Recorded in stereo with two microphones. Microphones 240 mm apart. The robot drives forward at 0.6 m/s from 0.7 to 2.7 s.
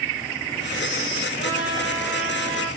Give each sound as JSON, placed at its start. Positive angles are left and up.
{"t": 1.4, "sound": "a trumpet", "side_deg": 55, "distance_m": 4.0}